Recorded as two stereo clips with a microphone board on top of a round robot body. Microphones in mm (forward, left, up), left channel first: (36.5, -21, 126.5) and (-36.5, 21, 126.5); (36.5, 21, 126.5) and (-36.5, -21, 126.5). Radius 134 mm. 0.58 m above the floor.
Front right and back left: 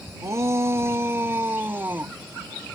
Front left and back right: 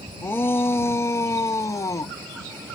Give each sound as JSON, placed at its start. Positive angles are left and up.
{"t": 0.2, "sound": "a shout", "azimuth_deg": 95}